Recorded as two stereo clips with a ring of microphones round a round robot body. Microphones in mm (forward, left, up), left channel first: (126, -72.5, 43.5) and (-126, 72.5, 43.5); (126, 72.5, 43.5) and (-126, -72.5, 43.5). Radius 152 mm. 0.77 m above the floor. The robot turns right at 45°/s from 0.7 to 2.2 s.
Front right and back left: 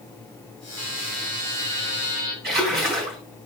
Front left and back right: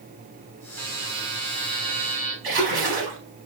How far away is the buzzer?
About 3.5 m.